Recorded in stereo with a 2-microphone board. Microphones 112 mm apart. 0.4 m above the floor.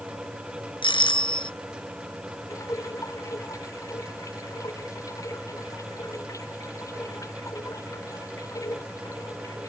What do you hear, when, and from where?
0.8 s a doorbell: 50° left (ahead or behind)
2.5 s dripping: 30° left (ahead or behind)